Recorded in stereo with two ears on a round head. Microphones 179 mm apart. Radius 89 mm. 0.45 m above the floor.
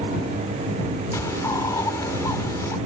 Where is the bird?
15° left (ahead or behind).